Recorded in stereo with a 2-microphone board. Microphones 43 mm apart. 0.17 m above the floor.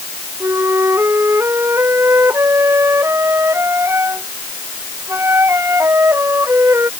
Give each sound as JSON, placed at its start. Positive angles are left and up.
{"t": 0.4, "sound": "a flute", "side_deg": -85}